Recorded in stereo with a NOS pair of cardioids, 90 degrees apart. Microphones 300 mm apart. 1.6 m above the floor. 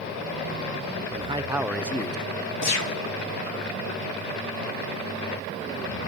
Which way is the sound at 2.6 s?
65° left.